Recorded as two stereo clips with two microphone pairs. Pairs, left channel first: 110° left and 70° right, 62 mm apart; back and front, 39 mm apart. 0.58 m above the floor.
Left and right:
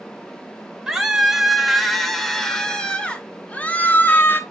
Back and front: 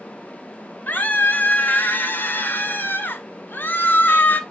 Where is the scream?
155° right, 2.5 m; by 4.4 s 160° left, 2.0 m.